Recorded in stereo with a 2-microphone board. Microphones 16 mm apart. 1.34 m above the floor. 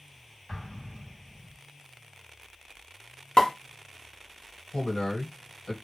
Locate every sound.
0.5 s an explosion: 80° left, 0.9 m
3.4 s a pop: 65° left (ahead or behind), 0.7 m
4.7 s a man speaking: 75° left (ahead or behind), 1.2 m